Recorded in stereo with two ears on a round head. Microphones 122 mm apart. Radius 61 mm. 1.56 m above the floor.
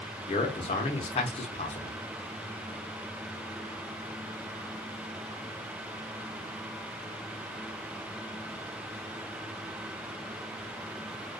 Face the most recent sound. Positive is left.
turn(degrees=45)  # may be behind; listen again after turning